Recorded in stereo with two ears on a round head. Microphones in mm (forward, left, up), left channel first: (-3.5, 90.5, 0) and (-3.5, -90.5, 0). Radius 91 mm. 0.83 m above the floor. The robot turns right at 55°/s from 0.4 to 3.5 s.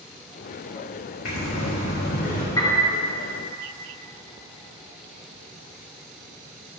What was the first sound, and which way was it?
Breathing, 80° left.